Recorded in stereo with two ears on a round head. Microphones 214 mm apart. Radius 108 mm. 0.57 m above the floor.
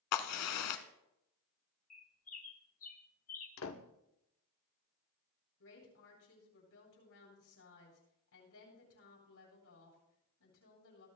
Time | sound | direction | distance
0.1 | a crack | 70° left (ahead or behind) | 1.1 m
1.9 | a bird | 35° left (ahead or behind) | 1.3 m
3.6 | a door slam | 60° left (ahead or behind) | 1.1 m
5.6 | a woman speaking | 60° left (ahead or behind) | 9 m